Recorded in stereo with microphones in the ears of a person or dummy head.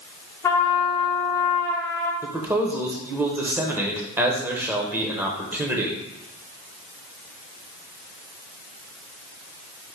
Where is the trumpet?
15° left (ahead or behind), 0.8 m.